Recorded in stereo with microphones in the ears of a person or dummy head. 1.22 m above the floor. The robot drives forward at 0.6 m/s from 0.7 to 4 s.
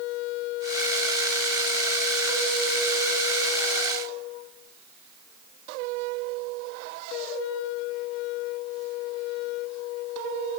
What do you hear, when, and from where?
Only background noise.